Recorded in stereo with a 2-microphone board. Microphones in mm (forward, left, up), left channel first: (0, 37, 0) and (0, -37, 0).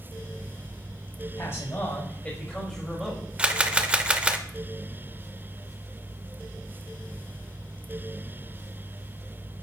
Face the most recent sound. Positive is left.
turn(degrees=-15)  # may be behind; listen again after turning